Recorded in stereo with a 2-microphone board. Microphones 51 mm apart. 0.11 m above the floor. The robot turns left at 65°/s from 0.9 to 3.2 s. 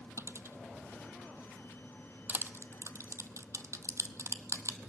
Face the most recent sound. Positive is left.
turn(degrees=-75)  # may be behind; listen again after turning